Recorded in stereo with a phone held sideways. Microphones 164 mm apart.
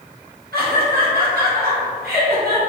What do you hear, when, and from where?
0.5 s laughter: 70° right (ahead or behind), 1.4 m